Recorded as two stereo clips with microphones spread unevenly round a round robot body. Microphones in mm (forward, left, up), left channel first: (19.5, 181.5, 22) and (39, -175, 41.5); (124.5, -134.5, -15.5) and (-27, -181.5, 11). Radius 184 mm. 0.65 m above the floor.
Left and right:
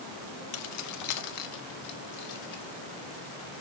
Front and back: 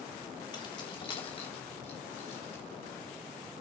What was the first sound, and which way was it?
Keys jangling, 65° left.